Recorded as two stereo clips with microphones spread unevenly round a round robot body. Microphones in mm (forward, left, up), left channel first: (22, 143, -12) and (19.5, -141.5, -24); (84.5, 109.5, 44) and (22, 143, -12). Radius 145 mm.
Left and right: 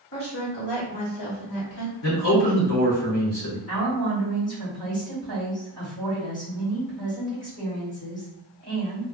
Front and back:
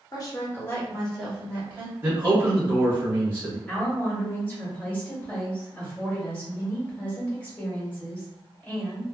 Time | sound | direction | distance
0.1 | a woman speaking | 35° left | 1.3 m
2.0 | a man speaking | 120° left | 1.3 m
3.7 | a woman speaking | 70° left | 1.6 m